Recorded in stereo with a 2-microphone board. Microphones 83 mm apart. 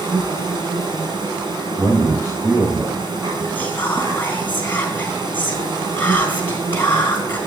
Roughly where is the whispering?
Left.